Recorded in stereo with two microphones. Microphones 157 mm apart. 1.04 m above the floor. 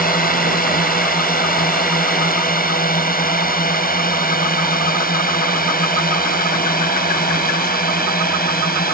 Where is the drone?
65° left (ahead or behind); by 8.9 s 70° left (ahead or behind).